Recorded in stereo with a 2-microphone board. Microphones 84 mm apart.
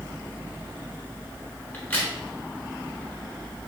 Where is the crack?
20° left (ahead or behind), 1.5 m.